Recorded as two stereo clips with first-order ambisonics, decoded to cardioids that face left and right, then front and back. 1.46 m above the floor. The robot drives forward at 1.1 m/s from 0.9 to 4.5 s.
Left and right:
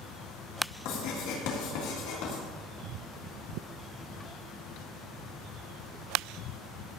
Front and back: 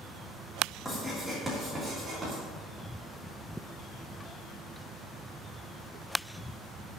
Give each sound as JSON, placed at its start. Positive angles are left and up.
{"t": 0.8, "sound": "writing", "azimuth_deg": 85, "distance_m": 3.5}